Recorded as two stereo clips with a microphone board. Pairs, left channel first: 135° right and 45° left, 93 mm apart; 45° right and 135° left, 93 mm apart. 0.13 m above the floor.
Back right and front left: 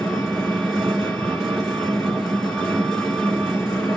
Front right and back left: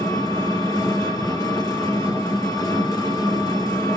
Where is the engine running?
50° right, 1.8 m.